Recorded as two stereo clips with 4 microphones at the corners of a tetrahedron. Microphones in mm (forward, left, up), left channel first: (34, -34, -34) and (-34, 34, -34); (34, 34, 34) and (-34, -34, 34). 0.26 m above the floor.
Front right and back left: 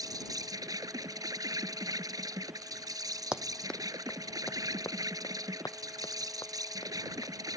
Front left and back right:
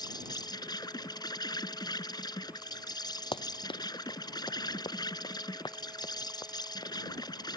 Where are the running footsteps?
55° left; by 7.6 s straight ahead.